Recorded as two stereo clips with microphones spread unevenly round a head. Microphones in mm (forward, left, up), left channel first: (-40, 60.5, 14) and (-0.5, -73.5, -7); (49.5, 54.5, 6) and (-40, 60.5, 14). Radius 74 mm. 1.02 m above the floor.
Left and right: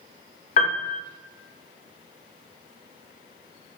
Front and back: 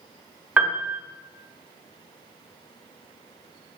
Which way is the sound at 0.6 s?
110° left.